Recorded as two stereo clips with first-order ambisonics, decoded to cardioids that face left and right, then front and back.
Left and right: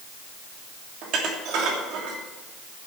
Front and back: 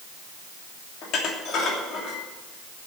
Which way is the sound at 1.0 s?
50° right.